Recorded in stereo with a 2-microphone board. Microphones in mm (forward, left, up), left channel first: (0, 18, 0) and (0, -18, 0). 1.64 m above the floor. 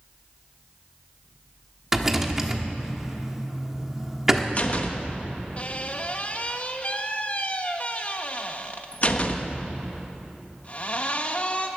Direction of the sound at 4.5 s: 40° left (ahead or behind).